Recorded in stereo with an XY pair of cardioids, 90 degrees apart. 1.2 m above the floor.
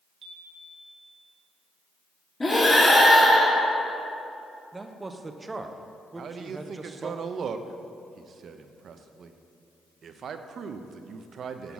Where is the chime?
60° right, 1.5 m.